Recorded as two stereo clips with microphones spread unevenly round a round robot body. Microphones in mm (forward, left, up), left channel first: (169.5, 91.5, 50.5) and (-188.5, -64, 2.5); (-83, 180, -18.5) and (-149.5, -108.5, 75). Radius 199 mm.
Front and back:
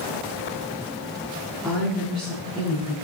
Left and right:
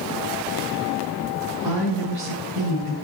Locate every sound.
1.6 s a woman speaking: 70° right, 8 m